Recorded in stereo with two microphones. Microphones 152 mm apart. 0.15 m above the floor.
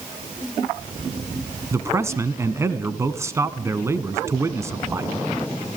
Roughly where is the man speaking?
Centre.